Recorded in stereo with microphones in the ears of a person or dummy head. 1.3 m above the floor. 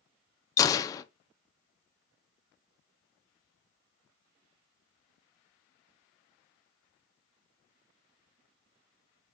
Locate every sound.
0.6 s a gunshot: 25° left (ahead or behind), 0.6 m